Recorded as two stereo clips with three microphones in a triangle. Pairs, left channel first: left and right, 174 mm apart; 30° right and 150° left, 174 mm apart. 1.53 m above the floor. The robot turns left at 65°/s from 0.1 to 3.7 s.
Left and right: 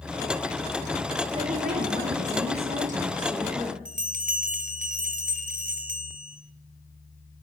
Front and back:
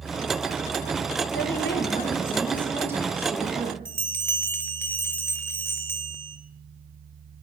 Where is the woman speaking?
30° right, 1.5 m; by 3.8 s 175° left, 1.5 m.